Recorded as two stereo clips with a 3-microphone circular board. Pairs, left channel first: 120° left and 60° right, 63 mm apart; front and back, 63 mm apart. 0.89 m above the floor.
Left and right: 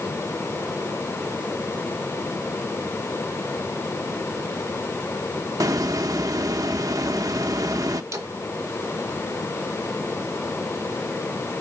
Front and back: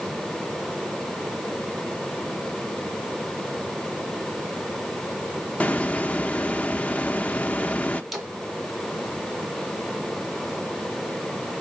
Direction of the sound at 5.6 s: 65° right.